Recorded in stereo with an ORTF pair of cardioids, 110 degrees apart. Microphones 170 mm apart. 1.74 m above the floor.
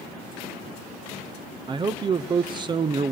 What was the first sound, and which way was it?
A man speaking, 25° right.